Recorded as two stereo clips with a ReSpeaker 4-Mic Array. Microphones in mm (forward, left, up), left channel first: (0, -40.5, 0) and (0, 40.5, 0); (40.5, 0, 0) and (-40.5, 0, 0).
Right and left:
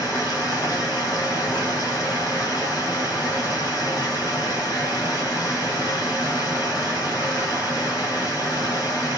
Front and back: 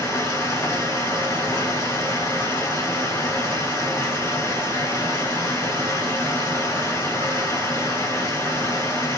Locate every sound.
0.0 s running water: 50° right, 3 m